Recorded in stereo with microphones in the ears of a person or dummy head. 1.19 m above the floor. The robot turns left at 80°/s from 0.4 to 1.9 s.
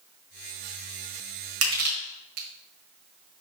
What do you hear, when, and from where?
1.6 s crushing: 70° right (ahead or behind), 1.8 m; by 2.5 s 50° right (ahead or behind), 1.8 m